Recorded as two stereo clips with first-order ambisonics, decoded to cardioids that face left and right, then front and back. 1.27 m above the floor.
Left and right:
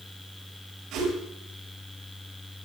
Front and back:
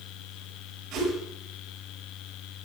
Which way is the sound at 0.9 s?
125° right.